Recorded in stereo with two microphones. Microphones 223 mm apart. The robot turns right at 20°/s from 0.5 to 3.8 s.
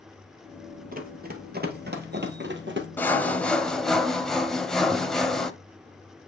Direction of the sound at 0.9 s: 40° right (ahead or behind).